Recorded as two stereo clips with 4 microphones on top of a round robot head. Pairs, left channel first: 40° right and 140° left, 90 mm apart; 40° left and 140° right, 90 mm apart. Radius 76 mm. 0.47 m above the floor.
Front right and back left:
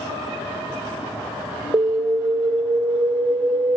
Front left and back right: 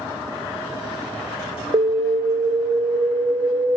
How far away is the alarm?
About 1.3 m.